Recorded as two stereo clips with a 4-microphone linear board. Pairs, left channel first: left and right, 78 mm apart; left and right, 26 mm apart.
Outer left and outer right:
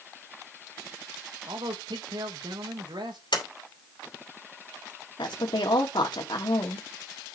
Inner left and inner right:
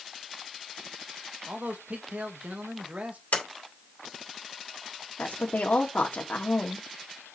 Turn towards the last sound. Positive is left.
turn(degrees=90)